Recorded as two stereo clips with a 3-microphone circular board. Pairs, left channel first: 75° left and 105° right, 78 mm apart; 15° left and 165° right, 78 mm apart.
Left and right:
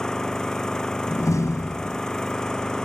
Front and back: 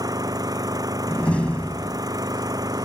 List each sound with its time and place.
0.0 s an engine running: 155° left
1.1 s a door slam: 80° left